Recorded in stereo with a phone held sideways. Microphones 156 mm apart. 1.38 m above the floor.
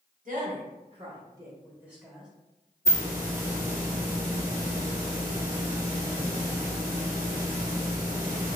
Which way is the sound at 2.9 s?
20° right (ahead or behind).